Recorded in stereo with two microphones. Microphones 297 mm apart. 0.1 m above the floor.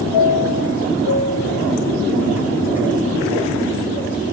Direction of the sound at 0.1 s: 5° right (ahead or behind).